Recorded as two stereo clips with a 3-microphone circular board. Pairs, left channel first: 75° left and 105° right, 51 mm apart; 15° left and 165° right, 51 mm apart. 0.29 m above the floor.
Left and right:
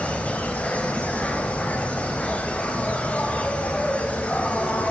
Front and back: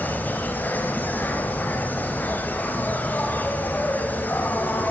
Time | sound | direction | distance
0.0 | an insect | 30° left | 2.5 m